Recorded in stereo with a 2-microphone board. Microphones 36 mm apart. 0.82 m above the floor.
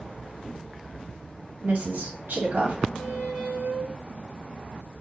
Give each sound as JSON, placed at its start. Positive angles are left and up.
{"t": 1.6, "sound": "a woman speaking", "side_deg": -60, "distance_m": 1.8}
{"t": 3.0, "sound": "a squeak", "side_deg": -75, "distance_m": 2.5}